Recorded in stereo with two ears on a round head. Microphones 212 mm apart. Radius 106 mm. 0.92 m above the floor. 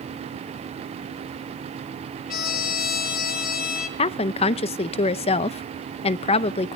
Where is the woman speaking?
25° left (ahead or behind), 0.5 m.